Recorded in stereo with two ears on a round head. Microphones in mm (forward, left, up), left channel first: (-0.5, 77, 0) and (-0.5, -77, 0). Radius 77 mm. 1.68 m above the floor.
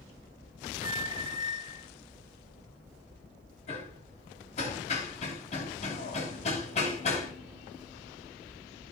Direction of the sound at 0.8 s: 30° right (ahead or behind).